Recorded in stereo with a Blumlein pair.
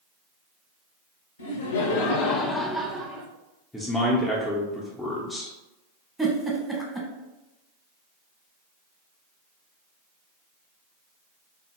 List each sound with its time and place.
1.4 s laughter: 65° left, 0.8 m; by 3.3 s 30° right, 0.6 m
3.7 s a man speaking: 5° left, 0.6 m
6.2 s a giggle: straight ahead, 1.0 m